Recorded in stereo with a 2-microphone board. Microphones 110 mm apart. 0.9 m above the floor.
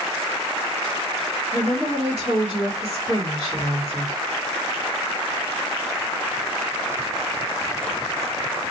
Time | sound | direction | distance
1.5 | a woman speaking | 55° right (ahead or behind) | 1.5 m